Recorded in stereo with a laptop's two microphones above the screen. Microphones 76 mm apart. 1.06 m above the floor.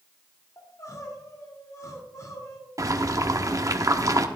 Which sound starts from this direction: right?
Boiling, at 2.8 s.